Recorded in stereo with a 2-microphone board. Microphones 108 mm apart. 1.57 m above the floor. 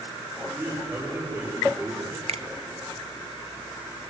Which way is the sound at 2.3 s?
90° right.